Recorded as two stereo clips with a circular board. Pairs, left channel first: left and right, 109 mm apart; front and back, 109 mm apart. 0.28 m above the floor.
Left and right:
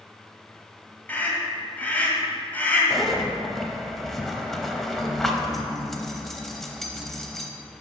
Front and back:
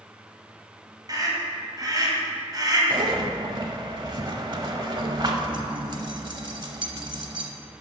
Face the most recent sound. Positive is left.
turn(degrees=175)